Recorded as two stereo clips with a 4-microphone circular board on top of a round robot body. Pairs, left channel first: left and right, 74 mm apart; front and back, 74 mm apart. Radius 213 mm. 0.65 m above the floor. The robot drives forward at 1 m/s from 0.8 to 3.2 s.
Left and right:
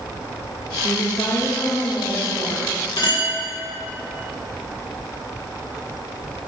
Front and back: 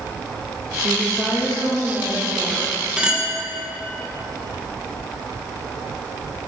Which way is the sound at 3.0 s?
105° left.